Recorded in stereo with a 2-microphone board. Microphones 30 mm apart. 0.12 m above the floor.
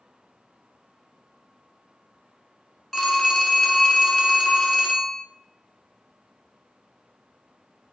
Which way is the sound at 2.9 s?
Centre (ahead or behind).